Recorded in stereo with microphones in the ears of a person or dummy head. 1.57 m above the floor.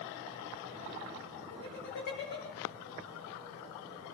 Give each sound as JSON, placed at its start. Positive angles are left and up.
{"t": 1.5, "sound": "laughter", "side_deg": 60, "distance_m": 8.0}